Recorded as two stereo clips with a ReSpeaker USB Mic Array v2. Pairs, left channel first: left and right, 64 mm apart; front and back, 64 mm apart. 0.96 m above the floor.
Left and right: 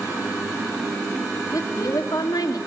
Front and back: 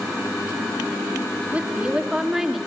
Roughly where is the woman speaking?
Left.